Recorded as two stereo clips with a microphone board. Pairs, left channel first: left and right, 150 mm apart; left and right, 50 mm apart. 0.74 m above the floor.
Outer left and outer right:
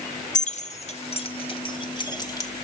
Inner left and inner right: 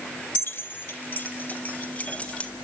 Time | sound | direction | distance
0.3 | keys jangling | 55° left (ahead or behind) | 1.3 m